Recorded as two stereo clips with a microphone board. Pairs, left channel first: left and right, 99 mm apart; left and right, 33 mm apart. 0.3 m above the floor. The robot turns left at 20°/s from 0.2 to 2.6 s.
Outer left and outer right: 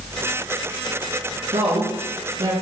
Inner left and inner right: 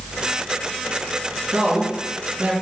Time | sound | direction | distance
1.5 | a woman speaking | 75° right (ahead or behind) | 3.5 m